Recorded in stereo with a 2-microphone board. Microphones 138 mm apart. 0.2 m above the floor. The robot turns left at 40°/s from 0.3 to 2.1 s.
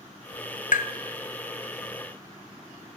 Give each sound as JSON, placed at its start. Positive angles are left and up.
{"t": 0.7, "sound": "tapping", "side_deg": 75, "distance_m": 0.6}